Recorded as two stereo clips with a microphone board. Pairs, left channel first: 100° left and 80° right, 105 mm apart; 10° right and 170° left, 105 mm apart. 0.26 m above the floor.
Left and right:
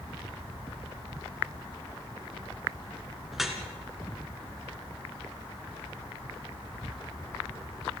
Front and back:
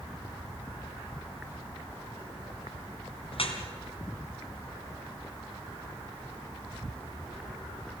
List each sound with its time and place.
3.3 s dripping: 10° left, 2 m